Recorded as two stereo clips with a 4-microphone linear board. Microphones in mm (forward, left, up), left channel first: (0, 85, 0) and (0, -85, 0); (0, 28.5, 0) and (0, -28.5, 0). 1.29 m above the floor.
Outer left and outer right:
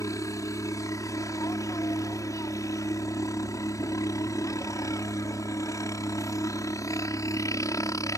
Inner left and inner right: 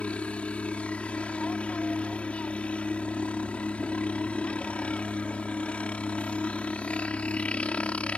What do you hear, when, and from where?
0.0 s a helicopter: 20° left (ahead or behind)